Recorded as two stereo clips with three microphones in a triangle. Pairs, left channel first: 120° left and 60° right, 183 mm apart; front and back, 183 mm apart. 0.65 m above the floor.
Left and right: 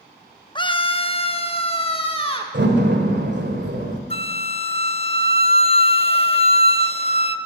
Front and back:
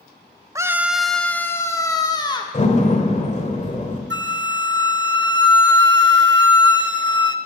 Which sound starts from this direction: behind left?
A scream, at 0.6 s.